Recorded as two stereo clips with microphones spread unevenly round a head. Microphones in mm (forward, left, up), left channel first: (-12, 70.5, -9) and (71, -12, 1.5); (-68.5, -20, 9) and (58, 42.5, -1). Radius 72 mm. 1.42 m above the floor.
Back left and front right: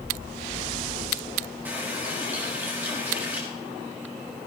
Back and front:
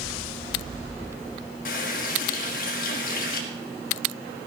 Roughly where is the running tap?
Behind right.